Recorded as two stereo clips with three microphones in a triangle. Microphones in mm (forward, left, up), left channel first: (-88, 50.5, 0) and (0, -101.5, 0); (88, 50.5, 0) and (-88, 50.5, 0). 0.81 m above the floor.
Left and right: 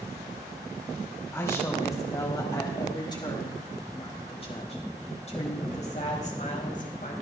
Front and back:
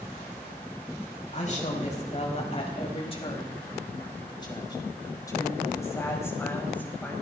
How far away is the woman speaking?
About 5.5 m.